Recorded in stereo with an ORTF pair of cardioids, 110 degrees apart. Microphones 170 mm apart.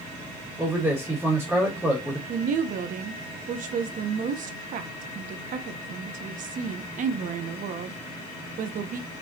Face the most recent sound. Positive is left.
turn(degrees=-55)